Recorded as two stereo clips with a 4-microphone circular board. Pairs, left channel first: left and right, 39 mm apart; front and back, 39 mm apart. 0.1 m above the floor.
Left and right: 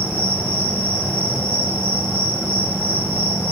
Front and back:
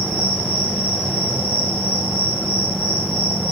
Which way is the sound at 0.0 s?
120° right.